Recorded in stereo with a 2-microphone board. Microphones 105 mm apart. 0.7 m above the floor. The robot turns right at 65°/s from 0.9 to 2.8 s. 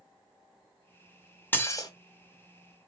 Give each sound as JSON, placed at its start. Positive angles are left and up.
{"t": 1.5, "sound": "dishes clattering", "side_deg": 20, "distance_m": 0.6}